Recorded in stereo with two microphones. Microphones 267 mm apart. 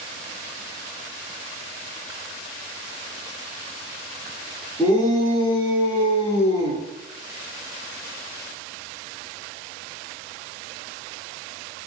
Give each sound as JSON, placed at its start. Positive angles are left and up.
{"t": 4.8, "sound": "a shout", "side_deg": 10, "distance_m": 1.7}